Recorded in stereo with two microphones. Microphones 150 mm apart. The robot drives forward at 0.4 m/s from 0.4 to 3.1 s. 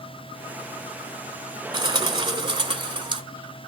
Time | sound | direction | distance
1.7 | a bird | 30° right (ahead or behind) | 1.6 m